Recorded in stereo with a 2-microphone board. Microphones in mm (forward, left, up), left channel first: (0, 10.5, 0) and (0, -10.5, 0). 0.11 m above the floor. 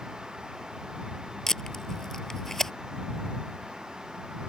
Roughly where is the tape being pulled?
Left.